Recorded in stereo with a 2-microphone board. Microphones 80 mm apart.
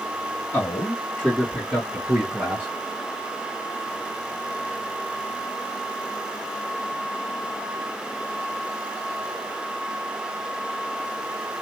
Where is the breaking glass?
I don't hear breaking glass.